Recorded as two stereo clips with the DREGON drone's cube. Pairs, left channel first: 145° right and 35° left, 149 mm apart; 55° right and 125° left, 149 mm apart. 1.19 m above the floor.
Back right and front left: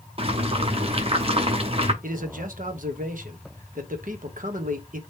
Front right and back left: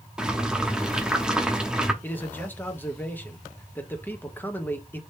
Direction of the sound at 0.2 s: 40° left.